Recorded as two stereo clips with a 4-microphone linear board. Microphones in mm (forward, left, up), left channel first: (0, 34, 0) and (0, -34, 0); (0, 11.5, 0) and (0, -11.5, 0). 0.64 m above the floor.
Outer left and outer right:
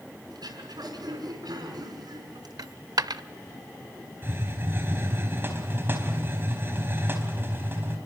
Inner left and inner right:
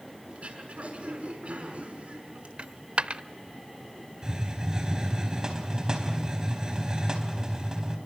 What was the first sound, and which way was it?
Throat clearing, 80° right.